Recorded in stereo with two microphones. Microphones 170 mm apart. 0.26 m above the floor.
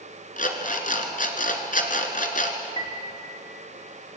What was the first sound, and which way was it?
An alarm clock, 60° left (ahead or behind).